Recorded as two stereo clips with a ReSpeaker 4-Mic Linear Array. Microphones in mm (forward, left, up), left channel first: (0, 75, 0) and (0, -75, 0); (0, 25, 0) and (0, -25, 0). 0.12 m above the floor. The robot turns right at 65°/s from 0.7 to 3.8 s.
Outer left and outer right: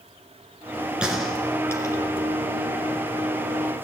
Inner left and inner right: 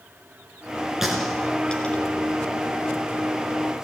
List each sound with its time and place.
1.0 s a gunshot: 5° right (ahead or behind), 1.8 m; by 2.0 s 25° left (ahead or behind), 1.8 m